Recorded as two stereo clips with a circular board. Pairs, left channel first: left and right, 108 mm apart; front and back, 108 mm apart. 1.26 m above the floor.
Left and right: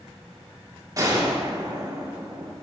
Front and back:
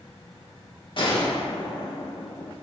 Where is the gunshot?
35° right, 1.4 m.